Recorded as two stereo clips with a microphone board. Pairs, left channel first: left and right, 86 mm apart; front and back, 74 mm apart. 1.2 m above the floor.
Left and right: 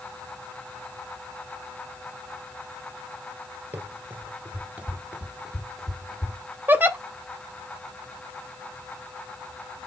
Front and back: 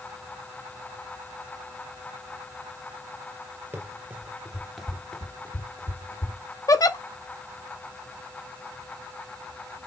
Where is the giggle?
25° right, 0.6 m.